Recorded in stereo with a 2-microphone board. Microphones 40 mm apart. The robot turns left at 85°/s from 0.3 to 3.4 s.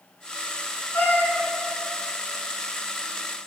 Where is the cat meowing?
100° left, 2.0 m; by 1.4 s 55° left, 2.0 m.